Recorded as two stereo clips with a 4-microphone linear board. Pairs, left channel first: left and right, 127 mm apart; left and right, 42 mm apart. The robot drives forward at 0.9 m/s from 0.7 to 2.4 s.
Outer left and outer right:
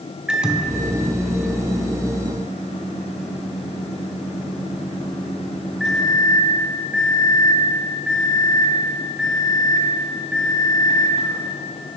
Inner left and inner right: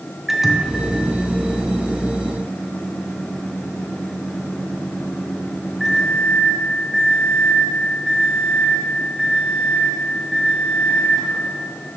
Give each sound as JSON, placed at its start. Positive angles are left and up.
{"t": 0.3, "sound": "a microwave", "side_deg": -5, "distance_m": 0.5}